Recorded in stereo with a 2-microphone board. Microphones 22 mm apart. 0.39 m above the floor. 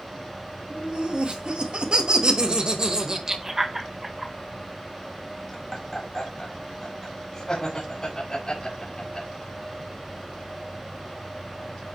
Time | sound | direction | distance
0.7 | laughter | 60° right (ahead or behind) | 2.5 m